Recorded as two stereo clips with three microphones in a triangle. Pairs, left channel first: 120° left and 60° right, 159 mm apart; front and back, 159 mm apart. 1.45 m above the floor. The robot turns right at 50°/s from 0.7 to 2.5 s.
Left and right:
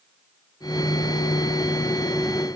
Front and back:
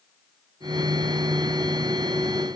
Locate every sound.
Only background noise.